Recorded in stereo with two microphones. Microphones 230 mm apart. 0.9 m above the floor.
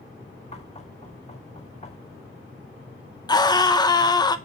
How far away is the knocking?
About 1.5 m.